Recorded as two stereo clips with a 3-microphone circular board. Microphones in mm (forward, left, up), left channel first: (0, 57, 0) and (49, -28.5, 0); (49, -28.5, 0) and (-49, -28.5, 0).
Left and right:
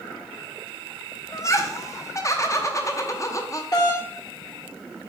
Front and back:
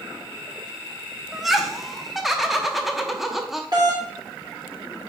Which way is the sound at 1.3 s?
95° left.